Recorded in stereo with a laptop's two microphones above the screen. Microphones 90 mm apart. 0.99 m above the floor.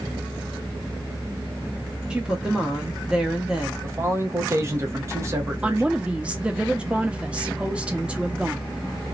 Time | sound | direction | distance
2.1 | a woman speaking | 10° right (ahead or behind) | 0.7 m
3.8 | a man speaking | 30° right (ahead or behind) | 0.8 m
5.6 | a woman speaking | 15° right (ahead or behind) | 0.9 m